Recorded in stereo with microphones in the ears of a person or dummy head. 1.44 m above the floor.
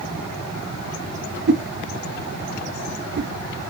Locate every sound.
1.5 s a whoosh: 55° right (ahead or behind), 0.5 m